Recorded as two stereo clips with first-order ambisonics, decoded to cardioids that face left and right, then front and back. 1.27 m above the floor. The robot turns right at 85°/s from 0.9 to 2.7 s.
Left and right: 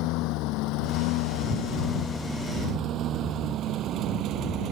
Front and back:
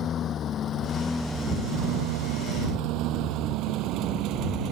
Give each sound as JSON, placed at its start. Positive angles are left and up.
{"t": 0.0, "sound": "a lawn mower", "azimuth_deg": 60}